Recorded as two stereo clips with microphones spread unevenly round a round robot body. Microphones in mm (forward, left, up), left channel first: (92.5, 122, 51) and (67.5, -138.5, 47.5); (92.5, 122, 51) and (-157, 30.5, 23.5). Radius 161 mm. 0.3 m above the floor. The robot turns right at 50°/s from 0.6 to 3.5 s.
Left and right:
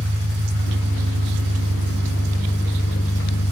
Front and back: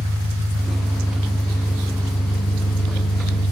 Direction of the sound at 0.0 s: 120° right.